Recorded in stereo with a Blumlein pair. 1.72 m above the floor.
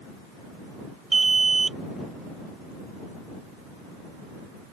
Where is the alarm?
15° right.